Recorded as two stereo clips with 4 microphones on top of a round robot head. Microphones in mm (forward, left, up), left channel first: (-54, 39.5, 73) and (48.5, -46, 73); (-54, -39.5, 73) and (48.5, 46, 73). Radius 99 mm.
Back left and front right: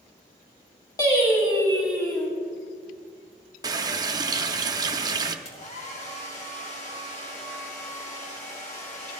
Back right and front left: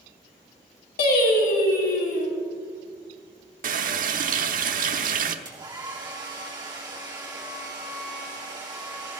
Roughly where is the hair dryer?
Left.